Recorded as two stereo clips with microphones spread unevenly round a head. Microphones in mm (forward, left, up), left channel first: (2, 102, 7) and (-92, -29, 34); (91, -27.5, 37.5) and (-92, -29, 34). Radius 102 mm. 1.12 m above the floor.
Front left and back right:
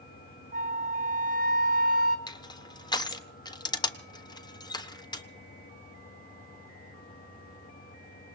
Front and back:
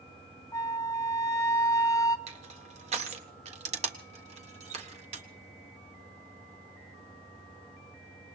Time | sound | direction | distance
0.5 | a flute | 70° right | 1.2 m
2.3 | crushing | 120° left | 1.4 m